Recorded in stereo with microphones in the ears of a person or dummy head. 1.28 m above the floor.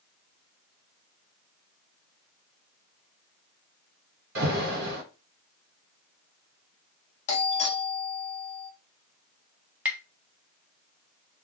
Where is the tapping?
10° right (ahead or behind), 0.5 m.